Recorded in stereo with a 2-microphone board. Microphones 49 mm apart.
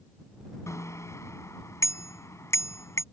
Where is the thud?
No thud in this recording.